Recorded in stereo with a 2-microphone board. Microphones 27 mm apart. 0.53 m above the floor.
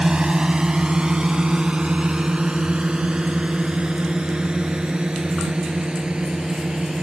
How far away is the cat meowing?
I don't hear a cat meowing.